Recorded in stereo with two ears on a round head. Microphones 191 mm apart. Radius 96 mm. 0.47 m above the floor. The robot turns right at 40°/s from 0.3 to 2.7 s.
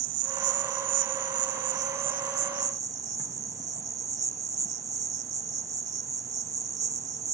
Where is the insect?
115° right; by 7.3 s 15° right.